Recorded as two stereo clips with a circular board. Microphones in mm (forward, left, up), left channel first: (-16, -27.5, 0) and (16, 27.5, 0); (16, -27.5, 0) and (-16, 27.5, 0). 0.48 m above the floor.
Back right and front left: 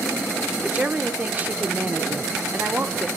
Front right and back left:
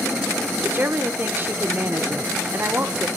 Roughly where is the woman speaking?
Left.